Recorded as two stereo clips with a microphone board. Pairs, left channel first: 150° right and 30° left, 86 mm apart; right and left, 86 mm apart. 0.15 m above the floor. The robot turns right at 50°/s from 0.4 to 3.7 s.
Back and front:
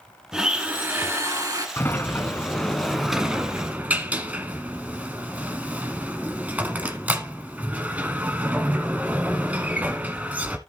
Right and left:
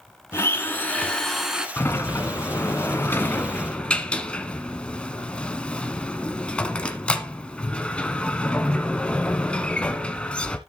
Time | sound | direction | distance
0.3 | a blender | 50° right | 1.1 m
1.8 | a sliding door | 120° right | 1.1 m